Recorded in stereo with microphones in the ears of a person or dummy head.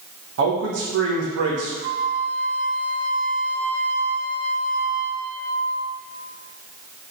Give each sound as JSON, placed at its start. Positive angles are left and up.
{"t": 0.4, "sound": "a man speaking", "side_deg": -60, "distance_m": 1.6}
{"t": 1.8, "sound": "a flute", "side_deg": -30, "distance_m": 0.7}